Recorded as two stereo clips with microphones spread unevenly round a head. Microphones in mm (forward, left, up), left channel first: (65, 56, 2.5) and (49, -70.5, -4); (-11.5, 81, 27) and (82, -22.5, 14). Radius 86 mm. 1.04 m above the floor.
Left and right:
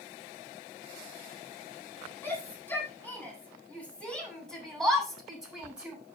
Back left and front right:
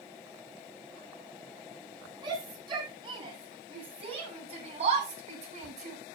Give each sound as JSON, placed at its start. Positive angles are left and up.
{"t": 2.2, "sound": "a shout", "azimuth_deg": 10, "distance_m": 9.0}